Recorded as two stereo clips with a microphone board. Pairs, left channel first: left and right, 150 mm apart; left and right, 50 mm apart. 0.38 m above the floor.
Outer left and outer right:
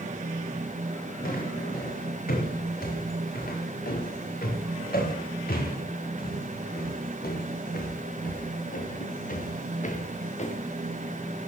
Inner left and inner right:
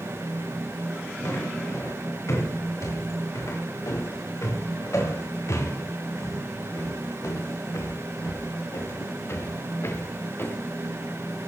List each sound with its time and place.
1.2 s footsteps: 80° left, 7 m; by 10.6 s 50° left (ahead or behind), 2.5 m